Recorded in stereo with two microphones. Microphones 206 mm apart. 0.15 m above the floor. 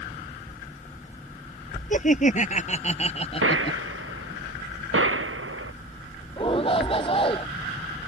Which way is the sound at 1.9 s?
40° left (ahead or behind).